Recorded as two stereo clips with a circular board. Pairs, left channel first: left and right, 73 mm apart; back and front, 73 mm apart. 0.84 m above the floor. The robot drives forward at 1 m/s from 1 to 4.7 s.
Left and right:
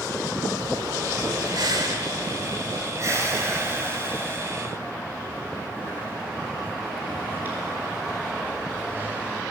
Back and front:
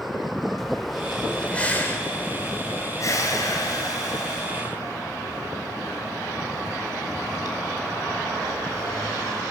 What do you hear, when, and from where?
0.6 s breathing: 90° right, 1.9 m; by 9.4 s 155° right, 4 m